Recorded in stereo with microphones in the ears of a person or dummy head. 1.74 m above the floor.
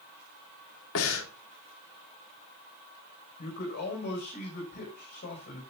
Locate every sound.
0.9 s breathing: 80° left, 2.5 m
3.4 s a man speaking: 55° left (ahead or behind), 6.5 m